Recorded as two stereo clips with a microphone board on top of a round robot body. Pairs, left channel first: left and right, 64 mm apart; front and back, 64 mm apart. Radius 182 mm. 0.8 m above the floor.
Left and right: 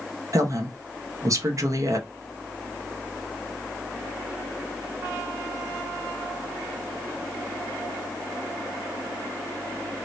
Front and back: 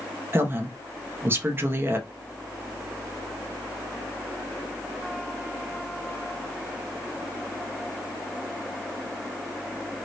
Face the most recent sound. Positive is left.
turn(degrees=-125)